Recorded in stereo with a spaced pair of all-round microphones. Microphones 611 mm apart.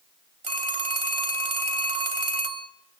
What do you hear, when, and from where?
0.4 s a phone ringing: 55° right (ahead or behind), 1.6 m